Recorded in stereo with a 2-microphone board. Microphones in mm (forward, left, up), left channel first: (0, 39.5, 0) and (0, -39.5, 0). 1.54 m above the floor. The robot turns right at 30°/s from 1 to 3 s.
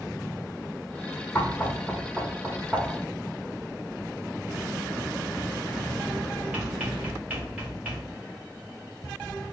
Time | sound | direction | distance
1.4 | knocking | 25° left (ahead or behind) | 0.8 m